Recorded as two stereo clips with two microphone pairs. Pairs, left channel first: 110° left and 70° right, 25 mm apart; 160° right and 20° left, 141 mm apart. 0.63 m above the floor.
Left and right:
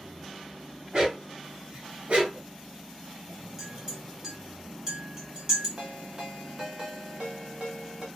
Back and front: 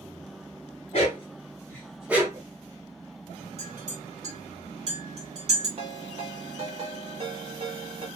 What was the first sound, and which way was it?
A dog barking, 120° right.